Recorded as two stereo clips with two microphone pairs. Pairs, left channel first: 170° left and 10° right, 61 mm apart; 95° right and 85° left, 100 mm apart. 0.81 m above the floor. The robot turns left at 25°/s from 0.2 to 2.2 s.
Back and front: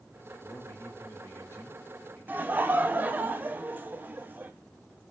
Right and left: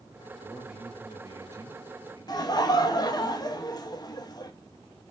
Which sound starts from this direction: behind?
A man speaking, at 0.4 s.